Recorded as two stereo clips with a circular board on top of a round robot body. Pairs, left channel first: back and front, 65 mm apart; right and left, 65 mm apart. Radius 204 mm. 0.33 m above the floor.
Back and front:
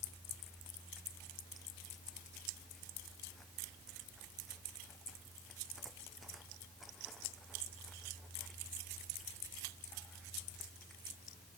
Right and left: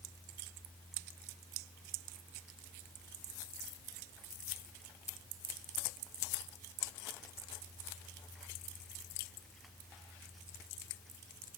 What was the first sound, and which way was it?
Only background noise.